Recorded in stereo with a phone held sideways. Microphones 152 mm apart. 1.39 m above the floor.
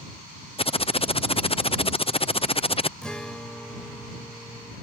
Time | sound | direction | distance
0.6 | typing on a keyboard | 40° left (ahead or behind) | ?
3.0 | a guitar | 5° left (ahead or behind) | ?